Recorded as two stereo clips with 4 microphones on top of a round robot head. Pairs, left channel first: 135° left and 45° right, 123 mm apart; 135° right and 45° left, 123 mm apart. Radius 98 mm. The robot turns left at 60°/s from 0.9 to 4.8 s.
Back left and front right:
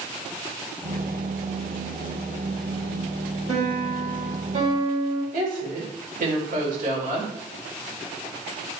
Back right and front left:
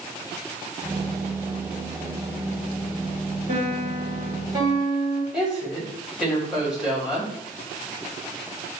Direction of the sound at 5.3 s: 40° right.